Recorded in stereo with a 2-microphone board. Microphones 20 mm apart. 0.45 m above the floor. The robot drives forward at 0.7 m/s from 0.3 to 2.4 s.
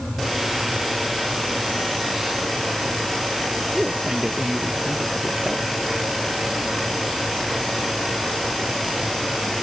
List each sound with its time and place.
3.7 s a man speaking: 30° right (ahead or behind)